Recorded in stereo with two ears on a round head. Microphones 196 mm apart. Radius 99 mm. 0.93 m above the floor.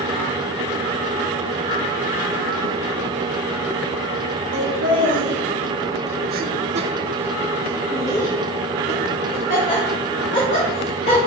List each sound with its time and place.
4.5 s laughter: 55° right (ahead or behind), 1.5 m; by 11.2 s 40° left (ahead or behind), 2.5 m